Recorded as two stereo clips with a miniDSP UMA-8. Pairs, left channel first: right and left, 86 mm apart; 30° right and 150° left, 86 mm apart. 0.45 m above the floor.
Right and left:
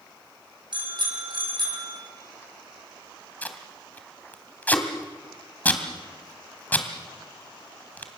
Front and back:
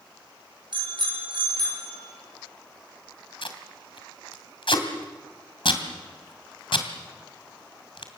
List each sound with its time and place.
0.7 s a bicycle bell: 120° left, 6.5 m
3.4 s tape being pulled: 20° right, 2.5 m